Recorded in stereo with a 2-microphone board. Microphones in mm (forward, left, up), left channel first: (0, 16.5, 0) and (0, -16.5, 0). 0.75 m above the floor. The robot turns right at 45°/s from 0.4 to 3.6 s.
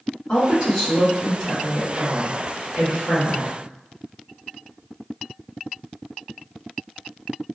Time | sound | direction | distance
0.3 | a woman speaking | 150° left | 1.1 m